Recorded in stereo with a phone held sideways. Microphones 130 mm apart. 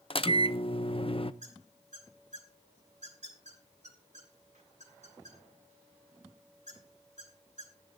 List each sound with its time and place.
0.1 s a microwave: 45° left (ahead or behind), 0.6 m
1.4 s a squeak: 65° right (ahead or behind), 4 m